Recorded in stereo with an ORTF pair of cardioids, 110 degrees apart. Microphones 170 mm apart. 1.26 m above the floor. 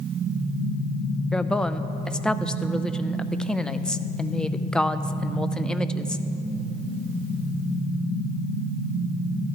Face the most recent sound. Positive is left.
turn(degrees=5)